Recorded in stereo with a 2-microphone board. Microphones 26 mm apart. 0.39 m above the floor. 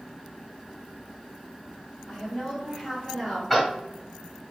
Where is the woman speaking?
5° right (ahead or behind), 2 m; by 3.4 s 25° right (ahead or behind), 2 m.